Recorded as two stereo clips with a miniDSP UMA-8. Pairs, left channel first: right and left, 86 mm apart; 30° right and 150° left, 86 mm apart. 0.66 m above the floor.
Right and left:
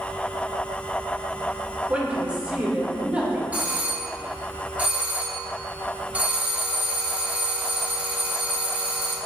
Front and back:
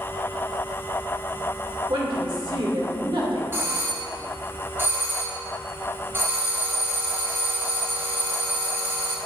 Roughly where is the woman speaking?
Behind.